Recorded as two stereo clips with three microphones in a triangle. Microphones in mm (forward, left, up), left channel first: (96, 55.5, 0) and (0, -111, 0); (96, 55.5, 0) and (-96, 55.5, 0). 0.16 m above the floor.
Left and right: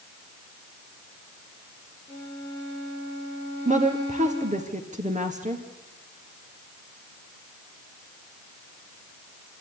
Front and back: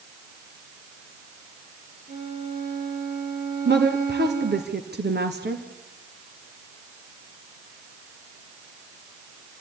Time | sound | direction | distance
2.1 | a violin | 130° left | 5 m
3.6 | a woman speaking | 165° right | 2.5 m